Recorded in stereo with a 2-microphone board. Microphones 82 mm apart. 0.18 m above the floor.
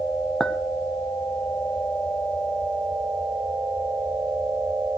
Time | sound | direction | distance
0.4 | a clink | 5° left (ahead or behind) | 0.6 m